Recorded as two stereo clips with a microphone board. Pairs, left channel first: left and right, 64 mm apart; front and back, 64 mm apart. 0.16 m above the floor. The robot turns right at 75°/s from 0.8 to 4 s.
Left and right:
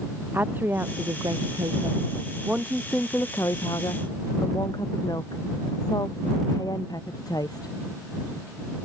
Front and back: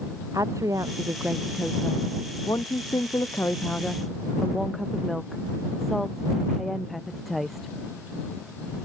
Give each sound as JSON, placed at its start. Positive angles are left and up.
{"t": 0.3, "sound": "a woman speaking", "azimuth_deg": -150}